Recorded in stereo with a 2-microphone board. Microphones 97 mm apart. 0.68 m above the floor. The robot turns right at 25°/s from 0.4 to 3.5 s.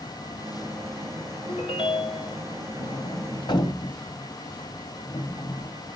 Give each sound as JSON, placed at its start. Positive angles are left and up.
{"t": 1.5, "sound": "a ringtone", "side_deg": 85, "distance_m": 1.8}
{"t": 2.8, "sound": "a sliding door", "side_deg": 70, "distance_m": 1.6}